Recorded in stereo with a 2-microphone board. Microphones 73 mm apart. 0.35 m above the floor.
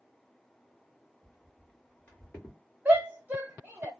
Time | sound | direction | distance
1.2 | footsteps | 15° left (ahead or behind) | 2 m
2.9 | a shout | 25° right (ahead or behind) | 1.3 m